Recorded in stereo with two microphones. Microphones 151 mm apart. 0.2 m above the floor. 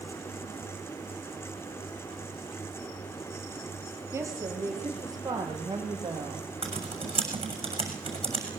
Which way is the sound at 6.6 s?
40° right (ahead or behind).